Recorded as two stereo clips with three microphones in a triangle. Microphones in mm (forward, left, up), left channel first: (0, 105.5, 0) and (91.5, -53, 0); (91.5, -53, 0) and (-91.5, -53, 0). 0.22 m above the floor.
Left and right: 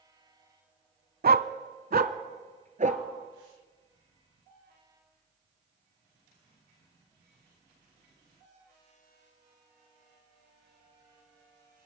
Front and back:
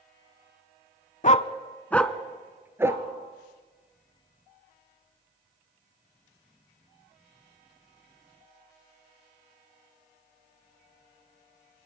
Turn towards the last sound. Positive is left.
turn(degrees=-105)